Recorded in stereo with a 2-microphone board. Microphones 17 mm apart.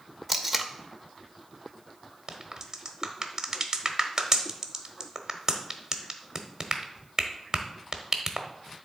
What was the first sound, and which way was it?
Tape being pulled, centre (ahead or behind).